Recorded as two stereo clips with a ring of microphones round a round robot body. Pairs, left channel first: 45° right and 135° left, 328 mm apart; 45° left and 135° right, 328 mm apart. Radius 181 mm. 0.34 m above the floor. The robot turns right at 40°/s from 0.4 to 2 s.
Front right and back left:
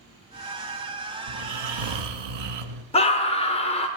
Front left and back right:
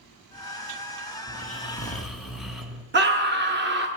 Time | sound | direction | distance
1.3 | snoring | 105° left | 1.1 m
2.9 | a scream | 105° right | 1.1 m